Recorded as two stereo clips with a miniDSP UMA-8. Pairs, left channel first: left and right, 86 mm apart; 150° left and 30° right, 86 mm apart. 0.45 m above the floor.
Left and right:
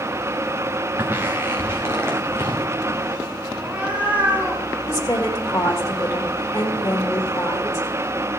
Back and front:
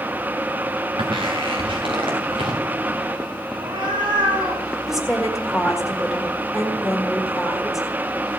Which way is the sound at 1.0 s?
25° right.